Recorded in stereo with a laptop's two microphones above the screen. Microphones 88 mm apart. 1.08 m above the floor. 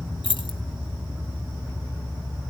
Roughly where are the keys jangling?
Left.